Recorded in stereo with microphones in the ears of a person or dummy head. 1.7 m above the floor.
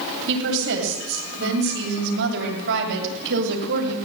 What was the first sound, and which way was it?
A woman speaking, 70° right (ahead or behind).